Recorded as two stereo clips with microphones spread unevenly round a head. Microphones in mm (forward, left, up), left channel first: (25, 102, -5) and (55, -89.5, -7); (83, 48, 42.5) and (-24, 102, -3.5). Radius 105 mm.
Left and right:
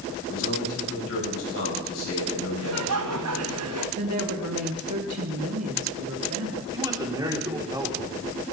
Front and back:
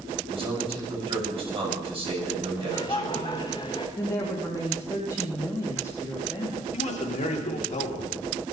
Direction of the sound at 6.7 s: 10° right.